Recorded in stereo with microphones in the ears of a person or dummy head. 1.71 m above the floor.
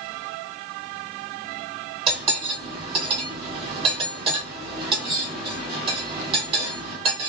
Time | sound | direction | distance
2.1 | cutlery clinking | 35° right (ahead or behind) | 1.6 m